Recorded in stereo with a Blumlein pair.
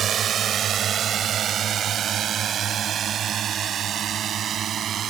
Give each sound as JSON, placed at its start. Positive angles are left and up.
{"t": 0.0, "sound": "a drone", "azimuth_deg": -25}